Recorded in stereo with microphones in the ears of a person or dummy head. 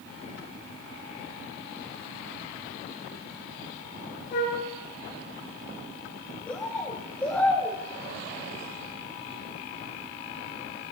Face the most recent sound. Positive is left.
turn(degrees=10)  # may be behind; listen again after turning